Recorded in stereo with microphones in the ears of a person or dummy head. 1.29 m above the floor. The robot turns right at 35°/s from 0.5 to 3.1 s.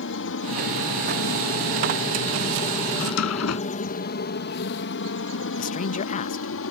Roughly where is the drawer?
Left.